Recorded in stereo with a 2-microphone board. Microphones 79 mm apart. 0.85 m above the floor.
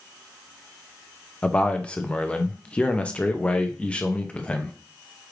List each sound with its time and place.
1.4 s a man speaking: 15° left (ahead or behind), 0.6 m